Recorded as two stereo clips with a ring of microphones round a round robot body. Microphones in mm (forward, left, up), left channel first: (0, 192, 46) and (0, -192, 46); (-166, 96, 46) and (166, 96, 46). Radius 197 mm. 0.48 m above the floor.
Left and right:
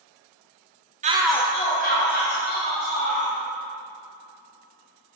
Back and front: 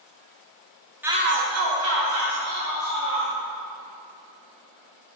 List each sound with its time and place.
1.0 s a shout: 75° right, 0.7 m; by 3.3 s 30° left, 3.5 m